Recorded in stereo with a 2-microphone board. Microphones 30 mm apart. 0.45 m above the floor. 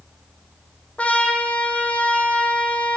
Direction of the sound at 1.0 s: 45° left (ahead or behind).